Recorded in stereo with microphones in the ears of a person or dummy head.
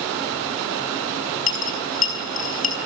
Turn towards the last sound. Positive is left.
turn(degrees=45)  # may be behind; listen again after turning